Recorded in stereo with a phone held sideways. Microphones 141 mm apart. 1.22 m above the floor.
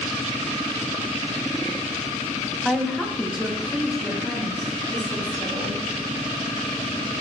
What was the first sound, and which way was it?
A woman speaking, centre (ahead or behind).